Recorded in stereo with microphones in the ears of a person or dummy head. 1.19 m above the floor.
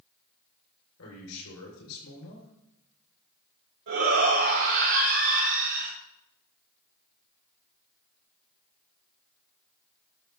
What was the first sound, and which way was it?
A man speaking, 85° left.